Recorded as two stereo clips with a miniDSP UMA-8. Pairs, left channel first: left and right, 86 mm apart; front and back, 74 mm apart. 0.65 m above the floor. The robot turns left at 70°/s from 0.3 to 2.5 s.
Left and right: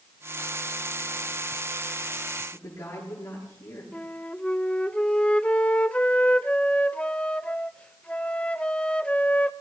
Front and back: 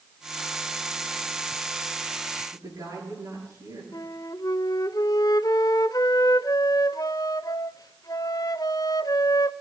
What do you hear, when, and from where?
2.5 s a woman speaking: 145° left, 9 m
3.9 s a flute: 15° left, 0.5 m